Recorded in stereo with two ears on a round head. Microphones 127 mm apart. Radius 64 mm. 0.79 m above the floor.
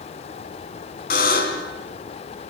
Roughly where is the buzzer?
Left.